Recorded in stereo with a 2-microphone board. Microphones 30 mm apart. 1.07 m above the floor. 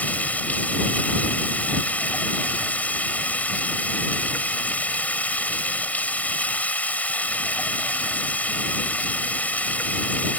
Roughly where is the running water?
Left.